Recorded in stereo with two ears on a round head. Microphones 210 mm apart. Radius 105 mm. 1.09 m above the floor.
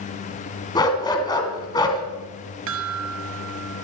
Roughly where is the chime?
Right.